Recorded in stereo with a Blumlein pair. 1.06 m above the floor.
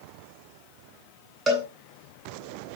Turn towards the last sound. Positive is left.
turn(degrees=-15)